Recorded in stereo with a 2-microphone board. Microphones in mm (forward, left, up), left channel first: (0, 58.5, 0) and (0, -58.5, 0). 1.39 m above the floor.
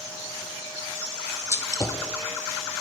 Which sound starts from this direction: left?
A gunshot, at 1.5 s.